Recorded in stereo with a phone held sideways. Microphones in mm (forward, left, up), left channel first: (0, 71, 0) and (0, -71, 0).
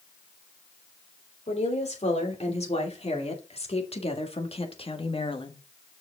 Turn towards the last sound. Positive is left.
turn(degrees=35)  # may be behind; listen again after turning